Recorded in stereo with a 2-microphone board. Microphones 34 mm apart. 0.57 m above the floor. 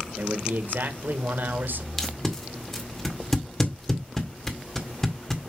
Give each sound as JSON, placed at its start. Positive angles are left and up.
{"t": 0.2, "sound": "a man speaking", "side_deg": -70, "distance_m": 1.6}
{"t": 2.0, "sound": "tape being pulled", "side_deg": 15, "distance_m": 1.8}